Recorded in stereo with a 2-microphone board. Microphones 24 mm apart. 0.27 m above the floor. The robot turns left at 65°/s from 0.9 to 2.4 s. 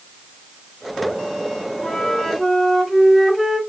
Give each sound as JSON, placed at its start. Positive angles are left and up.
{"t": 1.8, "sound": "a flute", "azimuth_deg": 55, "distance_m": 1.3}